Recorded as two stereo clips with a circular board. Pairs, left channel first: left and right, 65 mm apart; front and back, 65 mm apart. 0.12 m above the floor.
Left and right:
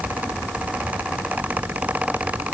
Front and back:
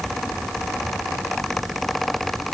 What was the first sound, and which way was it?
Only background noise.